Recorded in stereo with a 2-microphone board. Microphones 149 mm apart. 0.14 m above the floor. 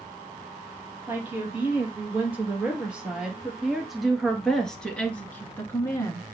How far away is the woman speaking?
About 3.5 m.